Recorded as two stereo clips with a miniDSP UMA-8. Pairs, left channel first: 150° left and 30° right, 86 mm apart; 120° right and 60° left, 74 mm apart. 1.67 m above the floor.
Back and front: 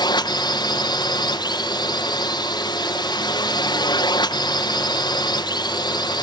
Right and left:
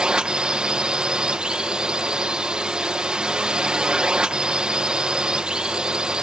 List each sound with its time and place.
0.0 s a drone: 135° left